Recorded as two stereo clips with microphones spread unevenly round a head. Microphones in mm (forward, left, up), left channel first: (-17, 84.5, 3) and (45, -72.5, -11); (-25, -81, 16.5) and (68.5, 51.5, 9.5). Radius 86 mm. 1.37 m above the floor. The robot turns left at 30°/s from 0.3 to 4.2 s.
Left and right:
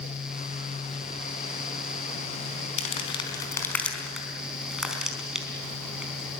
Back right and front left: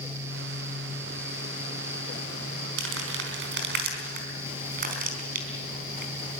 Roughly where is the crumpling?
Ahead left.